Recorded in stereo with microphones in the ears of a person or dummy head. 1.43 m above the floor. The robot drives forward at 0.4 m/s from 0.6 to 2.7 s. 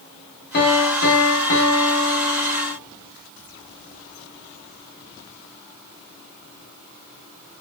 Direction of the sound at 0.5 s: 55° left (ahead or behind).